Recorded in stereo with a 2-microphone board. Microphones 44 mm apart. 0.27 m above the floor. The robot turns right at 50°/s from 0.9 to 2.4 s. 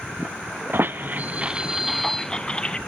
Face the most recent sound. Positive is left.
turn(degrees=20)  # may be behind; listen again after turning